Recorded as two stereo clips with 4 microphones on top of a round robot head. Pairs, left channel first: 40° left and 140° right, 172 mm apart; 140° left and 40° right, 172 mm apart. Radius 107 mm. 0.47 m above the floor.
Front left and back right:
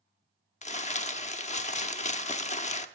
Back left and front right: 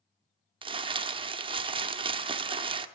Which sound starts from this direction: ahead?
Crumpling, at 0.6 s.